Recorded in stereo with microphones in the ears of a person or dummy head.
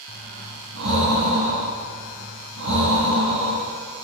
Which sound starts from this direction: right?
Breathing, at 0.1 s.